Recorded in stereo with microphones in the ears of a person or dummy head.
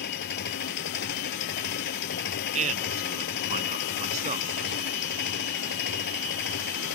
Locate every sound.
0.0 s an engine running: 55° left (ahead or behind)
2.5 s a man speaking: 40° right (ahead or behind)